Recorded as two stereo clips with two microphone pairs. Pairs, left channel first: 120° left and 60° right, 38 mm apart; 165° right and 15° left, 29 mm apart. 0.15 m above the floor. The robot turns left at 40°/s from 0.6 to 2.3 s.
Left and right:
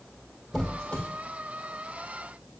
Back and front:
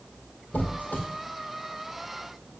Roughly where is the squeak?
Behind.